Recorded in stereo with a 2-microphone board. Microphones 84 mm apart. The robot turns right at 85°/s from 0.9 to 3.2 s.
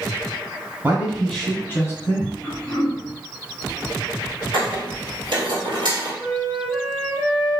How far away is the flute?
About 1.7 m.